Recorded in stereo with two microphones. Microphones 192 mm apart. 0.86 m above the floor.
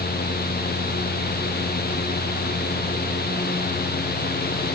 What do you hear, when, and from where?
Only background noise.